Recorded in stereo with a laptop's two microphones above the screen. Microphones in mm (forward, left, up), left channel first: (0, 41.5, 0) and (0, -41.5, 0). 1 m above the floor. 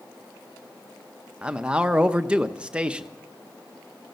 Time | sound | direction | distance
1.4 | a man speaking | 15° right (ahead or behind) | 0.6 m